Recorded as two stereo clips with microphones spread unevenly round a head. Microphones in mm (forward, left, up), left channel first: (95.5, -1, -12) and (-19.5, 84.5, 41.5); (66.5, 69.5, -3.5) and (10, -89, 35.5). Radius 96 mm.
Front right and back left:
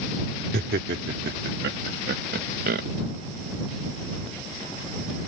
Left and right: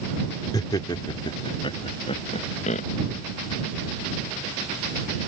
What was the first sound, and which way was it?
Laughter, 145° left.